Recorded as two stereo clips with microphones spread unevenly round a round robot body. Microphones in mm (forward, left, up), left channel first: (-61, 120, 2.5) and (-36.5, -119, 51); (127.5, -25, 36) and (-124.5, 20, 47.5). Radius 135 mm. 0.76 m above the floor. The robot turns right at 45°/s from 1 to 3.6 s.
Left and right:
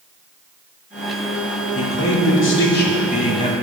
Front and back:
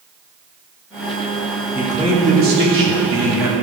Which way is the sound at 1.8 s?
85° left.